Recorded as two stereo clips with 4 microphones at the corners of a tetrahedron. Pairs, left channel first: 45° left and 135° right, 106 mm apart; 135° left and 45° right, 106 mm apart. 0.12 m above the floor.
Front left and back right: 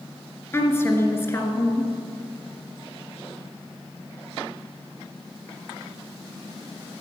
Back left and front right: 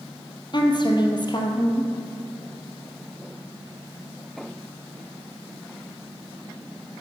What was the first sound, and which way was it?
A woman speaking, 105° left.